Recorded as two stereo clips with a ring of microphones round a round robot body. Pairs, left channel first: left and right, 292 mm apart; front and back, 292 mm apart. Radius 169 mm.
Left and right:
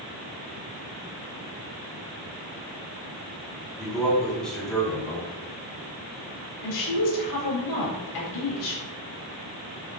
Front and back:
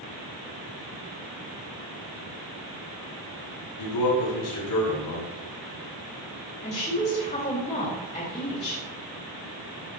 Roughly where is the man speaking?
Ahead.